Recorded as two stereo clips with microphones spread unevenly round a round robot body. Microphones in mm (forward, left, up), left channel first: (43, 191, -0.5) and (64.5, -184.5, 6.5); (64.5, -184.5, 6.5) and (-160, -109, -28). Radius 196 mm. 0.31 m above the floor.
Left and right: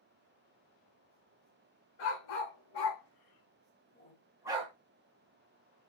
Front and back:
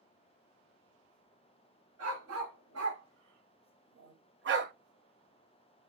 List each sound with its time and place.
2.0 s a dog barking: 115° left, 1.6 m; by 4.7 s 155° right, 0.7 m